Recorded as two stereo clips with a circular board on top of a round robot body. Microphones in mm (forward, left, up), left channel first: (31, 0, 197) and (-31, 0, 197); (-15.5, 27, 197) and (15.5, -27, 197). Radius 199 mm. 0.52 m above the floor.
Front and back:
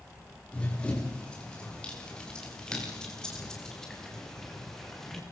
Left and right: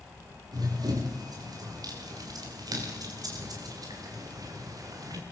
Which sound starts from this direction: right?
Running footsteps, at 0.5 s.